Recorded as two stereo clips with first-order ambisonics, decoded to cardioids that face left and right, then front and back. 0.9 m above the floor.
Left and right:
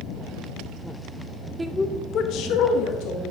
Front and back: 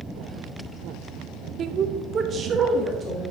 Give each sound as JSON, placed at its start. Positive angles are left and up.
{"t": 1.6, "sound": "a woman speaking", "azimuth_deg": -155, "distance_m": 0.6}